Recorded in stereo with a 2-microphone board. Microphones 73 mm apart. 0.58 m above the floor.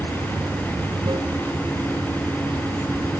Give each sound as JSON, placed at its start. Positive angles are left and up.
{"t": 0.0, "sound": "running water", "side_deg": -65}